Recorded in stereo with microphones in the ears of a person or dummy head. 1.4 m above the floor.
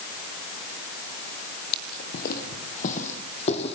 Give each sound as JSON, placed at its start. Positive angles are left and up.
{"t": 1.7, "sound": "footsteps", "side_deg": 50, "distance_m": 2.5}